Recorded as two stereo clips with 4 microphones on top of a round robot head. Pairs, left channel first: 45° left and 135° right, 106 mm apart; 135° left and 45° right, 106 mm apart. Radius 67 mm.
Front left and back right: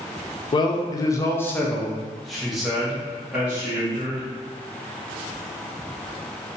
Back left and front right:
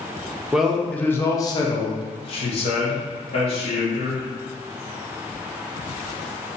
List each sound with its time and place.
0.5 s a man speaking: 35° left, 0.7 m; by 4.3 s 150° left, 1.8 m